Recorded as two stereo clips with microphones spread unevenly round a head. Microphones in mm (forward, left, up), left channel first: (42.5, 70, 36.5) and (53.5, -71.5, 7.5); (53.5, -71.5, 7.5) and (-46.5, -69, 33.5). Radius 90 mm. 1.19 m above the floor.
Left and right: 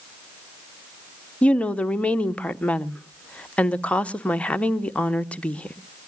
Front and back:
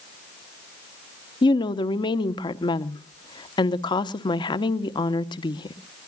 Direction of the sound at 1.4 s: 5° left.